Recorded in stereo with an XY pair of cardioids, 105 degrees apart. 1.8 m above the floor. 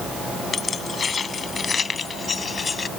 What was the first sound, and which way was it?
Keys jangling, 40° left.